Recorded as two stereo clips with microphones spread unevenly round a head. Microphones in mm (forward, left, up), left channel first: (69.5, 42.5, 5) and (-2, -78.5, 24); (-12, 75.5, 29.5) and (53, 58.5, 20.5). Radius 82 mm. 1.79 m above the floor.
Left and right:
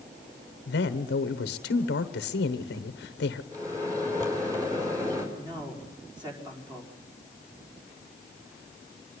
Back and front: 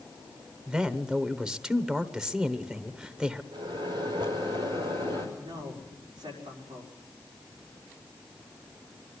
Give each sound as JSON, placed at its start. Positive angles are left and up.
{"t": 0.7, "sound": "a man speaking", "azimuth_deg": 70, "distance_m": 1.1}
{"t": 3.5, "sound": "a microwave", "azimuth_deg": -55, "distance_m": 5.0}
{"t": 5.3, "sound": "a man speaking", "azimuth_deg": -60, "distance_m": 5.0}